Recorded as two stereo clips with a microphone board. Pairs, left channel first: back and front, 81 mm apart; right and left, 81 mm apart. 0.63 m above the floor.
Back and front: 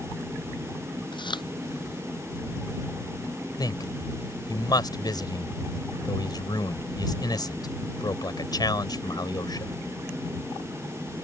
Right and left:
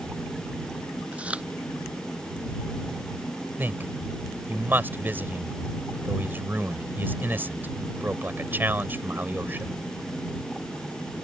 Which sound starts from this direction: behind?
Chewing, at 1.1 s.